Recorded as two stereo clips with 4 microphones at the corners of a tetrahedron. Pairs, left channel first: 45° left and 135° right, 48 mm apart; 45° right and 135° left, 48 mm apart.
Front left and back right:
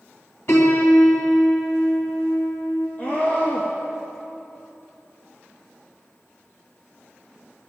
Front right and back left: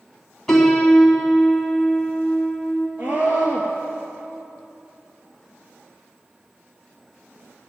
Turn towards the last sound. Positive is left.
turn(degrees=95)